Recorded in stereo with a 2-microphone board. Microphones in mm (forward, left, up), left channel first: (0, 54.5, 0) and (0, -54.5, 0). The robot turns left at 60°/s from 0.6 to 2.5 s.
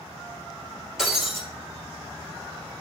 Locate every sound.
1.0 s breaking glass: 5° right (ahead or behind), 1.7 m; by 1.4 s 30° right (ahead or behind), 1.7 m